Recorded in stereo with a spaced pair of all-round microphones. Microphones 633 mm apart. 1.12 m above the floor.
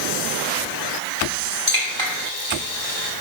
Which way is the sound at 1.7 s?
50° right (ahead or behind).